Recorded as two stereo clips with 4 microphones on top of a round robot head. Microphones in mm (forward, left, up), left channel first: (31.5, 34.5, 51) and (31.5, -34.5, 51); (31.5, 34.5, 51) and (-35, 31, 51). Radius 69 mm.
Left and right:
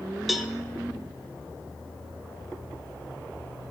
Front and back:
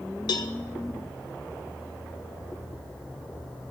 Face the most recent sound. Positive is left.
turn(degrees=0)